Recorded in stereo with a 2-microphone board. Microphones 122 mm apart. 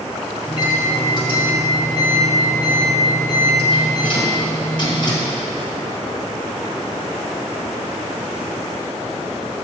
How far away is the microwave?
About 1.3 m.